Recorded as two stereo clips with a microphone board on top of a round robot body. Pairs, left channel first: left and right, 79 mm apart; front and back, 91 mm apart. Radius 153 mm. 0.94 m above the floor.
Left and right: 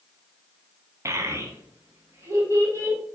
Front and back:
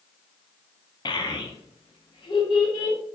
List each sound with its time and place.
1.1 s a child speaking: 35° right, 0.7 m; by 3.0 s 30° right, 1.7 m